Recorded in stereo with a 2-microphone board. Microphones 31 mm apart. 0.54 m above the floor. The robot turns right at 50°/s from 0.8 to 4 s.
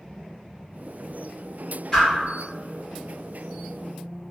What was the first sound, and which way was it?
A whoosh, 20° left (ahead or behind).